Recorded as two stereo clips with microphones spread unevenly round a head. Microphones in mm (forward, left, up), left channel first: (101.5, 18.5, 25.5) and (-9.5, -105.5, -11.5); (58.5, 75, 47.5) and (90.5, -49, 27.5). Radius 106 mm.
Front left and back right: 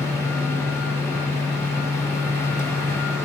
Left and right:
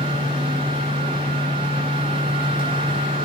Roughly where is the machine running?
Ahead right.